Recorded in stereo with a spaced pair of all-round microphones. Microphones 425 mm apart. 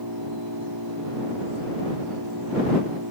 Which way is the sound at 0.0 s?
55° right (ahead or behind).